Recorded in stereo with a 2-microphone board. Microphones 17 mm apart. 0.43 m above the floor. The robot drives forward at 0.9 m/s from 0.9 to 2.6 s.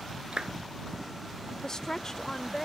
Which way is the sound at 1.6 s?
35° left (ahead or behind).